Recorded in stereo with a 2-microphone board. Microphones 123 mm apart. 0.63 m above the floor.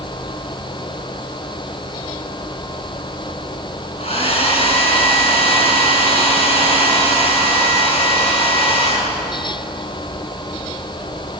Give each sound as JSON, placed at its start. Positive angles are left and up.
{"t": 4.0, "sound": "a hair dryer", "side_deg": 55, "distance_m": 4.5}